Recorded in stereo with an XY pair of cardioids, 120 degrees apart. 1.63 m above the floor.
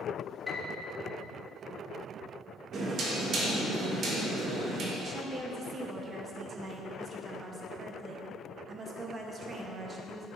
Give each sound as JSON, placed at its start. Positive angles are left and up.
{"t": 0.5, "sound": "a piano", "azimuth_deg": 30, "distance_m": 1.2}
{"t": 2.7, "sound": "knocking", "azimuth_deg": -55, "distance_m": 1.5}
{"t": 5.0, "sound": "a woman speaking", "azimuth_deg": -35, "distance_m": 1.2}